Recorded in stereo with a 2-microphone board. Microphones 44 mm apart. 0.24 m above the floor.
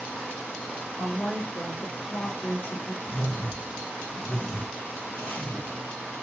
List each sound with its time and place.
1.0 s a woman speaking: 50° left (ahead or behind), 2 m; by 2.9 s 55° left (ahead or behind), 2.5 m
3.0 s a whoosh: 65° left (ahead or behind), 2 m